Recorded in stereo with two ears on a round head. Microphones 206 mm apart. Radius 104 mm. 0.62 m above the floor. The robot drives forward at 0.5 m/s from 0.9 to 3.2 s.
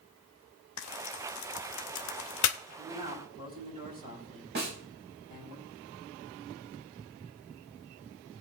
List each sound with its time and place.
0.8 s frying: 70° left (ahead or behind), 0.9 m; by 2.6 s 60° left (ahead or behind), 1.0 m
2.8 s a man speaking: 30° right (ahead or behind), 7 m
4.5 s a snare drum: 50° right (ahead or behind), 4 m